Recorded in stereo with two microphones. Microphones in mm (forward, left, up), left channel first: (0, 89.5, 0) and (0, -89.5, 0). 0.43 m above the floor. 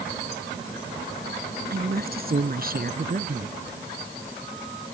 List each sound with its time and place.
1.7 s a woman speaking: 55° right (ahead or behind); by 3.5 s 50° right (ahead or behind)